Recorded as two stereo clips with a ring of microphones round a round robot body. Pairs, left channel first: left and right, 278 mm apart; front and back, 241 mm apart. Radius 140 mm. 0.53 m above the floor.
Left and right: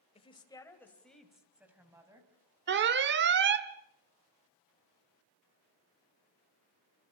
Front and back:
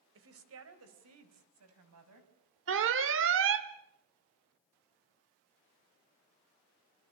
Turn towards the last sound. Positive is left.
turn(degrees=-140)